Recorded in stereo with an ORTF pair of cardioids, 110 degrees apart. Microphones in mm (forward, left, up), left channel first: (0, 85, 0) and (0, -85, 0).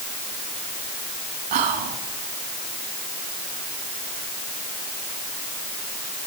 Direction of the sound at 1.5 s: 70° right.